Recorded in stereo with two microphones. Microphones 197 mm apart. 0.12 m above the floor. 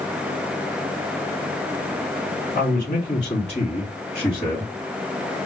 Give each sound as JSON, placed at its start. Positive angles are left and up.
{"t": 2.5, "sound": "a man speaking", "side_deg": 40, "distance_m": 2.0}